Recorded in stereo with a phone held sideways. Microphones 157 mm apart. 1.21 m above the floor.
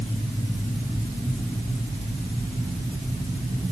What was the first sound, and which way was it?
Only background noise.